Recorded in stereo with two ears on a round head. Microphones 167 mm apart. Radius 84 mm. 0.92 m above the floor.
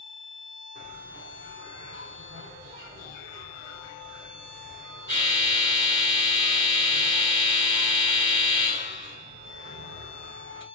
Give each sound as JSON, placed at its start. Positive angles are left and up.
{"t": 0.8, "sound": "a bell", "side_deg": -55, "distance_m": 3.0}